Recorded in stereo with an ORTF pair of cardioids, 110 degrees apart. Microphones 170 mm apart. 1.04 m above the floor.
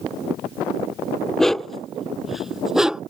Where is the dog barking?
5° left; by 3.0 s 5° right.